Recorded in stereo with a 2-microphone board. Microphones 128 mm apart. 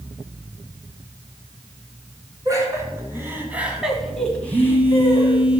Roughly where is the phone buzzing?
Centre.